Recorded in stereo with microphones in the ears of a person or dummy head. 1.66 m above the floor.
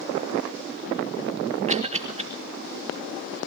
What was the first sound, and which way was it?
A cough, 30° right (ahead or behind).